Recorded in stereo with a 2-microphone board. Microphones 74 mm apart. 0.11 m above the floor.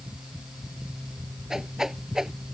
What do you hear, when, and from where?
1.5 s a whoosh: 5° right (ahead or behind)